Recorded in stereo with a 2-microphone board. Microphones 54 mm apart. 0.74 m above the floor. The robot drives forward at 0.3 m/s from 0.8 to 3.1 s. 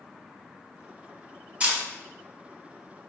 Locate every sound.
1.6 s a camera shutter: 30° right (ahead or behind), 1.9 m